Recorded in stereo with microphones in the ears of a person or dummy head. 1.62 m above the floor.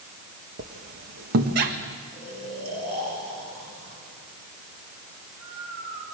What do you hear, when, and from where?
0.6 s a squeak: 55° right (ahead or behind), 1.6 m
2.1 s snoring: 50° right (ahead or behind), 7 m